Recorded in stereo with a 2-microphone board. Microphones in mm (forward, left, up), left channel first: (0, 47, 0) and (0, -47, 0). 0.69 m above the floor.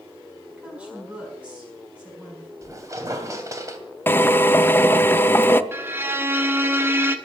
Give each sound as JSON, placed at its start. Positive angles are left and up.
{"t": 0.6, "sound": "a woman speaking", "side_deg": -15, "distance_m": 6.0}
{"t": 2.6, "sound": "a squeak", "side_deg": -30, "distance_m": 2.5}
{"t": 4.1, "sound": "a drill", "side_deg": 20, "distance_m": 0.6}
{"t": 5.7, "sound": "a violin", "side_deg": -25, "distance_m": 1.2}